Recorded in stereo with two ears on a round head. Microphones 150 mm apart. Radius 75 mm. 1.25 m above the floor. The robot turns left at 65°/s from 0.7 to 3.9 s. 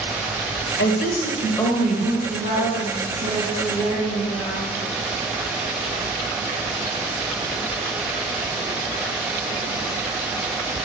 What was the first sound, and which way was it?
A woman speaking, 70° left.